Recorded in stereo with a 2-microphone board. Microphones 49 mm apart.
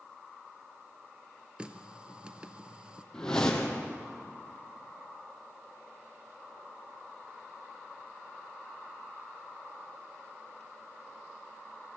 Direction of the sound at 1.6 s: 20° right (ahead or behind).